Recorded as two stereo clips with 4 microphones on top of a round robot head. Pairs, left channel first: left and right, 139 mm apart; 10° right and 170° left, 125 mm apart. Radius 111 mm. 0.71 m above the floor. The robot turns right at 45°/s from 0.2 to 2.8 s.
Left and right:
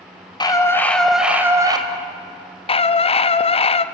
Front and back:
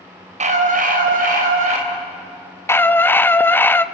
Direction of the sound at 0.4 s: 150° left.